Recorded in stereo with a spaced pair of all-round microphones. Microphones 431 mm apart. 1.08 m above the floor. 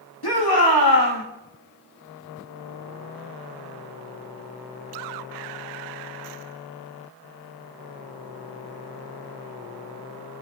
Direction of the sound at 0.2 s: 65° left (ahead or behind).